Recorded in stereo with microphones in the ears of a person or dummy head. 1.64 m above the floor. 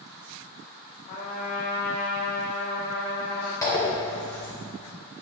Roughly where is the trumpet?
Left.